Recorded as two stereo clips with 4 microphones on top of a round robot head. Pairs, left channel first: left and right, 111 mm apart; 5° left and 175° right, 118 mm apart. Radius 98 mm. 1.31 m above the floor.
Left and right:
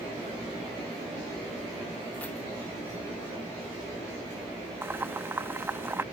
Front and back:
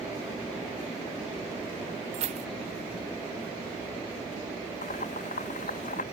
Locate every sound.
2.1 s keys jangling: 170° left
4.8 s boiling: 20° right